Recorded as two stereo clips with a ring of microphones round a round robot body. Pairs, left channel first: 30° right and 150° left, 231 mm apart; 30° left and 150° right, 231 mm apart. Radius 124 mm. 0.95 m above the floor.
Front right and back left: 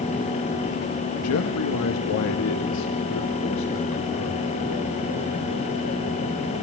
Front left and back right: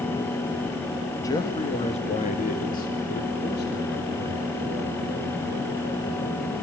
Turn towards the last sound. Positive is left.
turn(degrees=-10)